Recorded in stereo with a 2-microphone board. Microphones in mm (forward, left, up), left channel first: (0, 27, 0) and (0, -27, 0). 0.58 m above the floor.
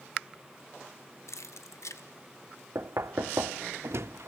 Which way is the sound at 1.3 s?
70° left (ahead or behind).